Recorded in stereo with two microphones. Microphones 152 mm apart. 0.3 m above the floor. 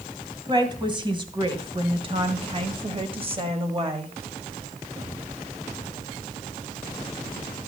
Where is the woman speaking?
30° right (ahead or behind), 2 m; by 4.1 s 35° right (ahead or behind), 1.5 m.